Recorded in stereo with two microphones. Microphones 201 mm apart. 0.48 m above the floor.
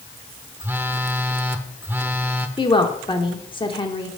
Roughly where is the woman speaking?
Left.